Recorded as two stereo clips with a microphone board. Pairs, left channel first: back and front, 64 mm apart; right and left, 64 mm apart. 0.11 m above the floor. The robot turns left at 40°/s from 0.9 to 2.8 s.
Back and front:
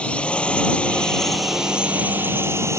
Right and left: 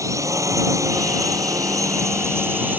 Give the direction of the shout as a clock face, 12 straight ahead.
I don't hear a shout.